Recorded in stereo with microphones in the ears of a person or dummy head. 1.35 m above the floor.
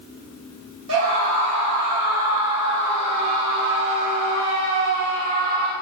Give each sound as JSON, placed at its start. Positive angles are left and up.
{"t": 0.9, "sound": "a scream", "side_deg": -75, "distance_m": 6.5}